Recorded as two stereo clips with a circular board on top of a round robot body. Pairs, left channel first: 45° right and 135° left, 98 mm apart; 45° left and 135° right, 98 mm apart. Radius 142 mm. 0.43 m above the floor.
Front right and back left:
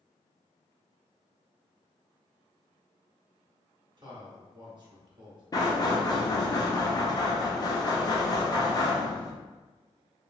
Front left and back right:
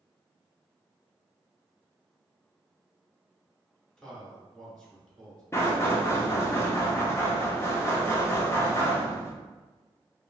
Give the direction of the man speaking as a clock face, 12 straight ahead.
8 o'clock.